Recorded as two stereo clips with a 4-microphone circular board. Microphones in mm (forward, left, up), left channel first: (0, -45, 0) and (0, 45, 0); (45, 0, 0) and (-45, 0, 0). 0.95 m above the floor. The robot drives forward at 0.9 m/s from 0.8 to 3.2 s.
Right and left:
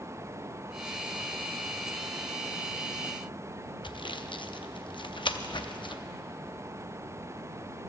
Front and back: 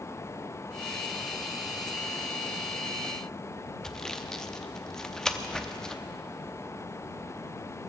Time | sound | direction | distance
3.8 | sawing | 85° right | 0.5 m